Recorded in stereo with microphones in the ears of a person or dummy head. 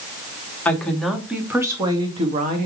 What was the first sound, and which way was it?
A woman speaking, 10° left (ahead or behind).